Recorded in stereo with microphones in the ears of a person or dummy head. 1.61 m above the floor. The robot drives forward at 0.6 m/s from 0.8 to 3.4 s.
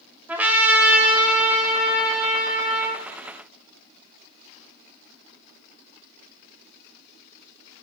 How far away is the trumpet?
About 1.0 m.